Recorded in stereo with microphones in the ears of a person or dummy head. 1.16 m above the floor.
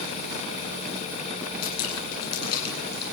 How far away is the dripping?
About 9.5 m.